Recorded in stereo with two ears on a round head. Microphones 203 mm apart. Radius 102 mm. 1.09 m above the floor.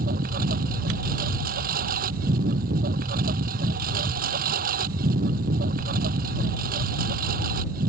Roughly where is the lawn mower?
Right.